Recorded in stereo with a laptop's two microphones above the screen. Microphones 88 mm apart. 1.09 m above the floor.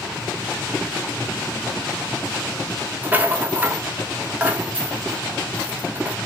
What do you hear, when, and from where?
3.0 s a rattle: 25° right (ahead or behind), 1.0 m